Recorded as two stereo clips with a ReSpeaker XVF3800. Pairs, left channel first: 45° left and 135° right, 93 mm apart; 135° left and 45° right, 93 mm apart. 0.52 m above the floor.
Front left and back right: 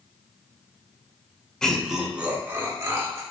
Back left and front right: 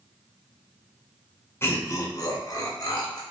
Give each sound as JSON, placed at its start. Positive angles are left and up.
{"t": 1.6, "sound": "laughter", "azimuth_deg": 120, "distance_m": 0.7}